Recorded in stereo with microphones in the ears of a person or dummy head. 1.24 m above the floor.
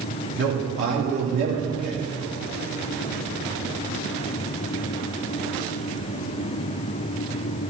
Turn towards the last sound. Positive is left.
turn(degrees=-70)  # may be behind; listen again after turning